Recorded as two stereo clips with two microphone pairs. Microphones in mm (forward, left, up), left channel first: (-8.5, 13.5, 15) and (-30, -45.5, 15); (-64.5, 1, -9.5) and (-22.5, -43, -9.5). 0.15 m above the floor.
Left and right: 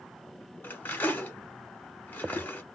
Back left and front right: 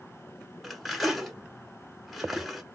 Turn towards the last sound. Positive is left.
turn(degrees=45)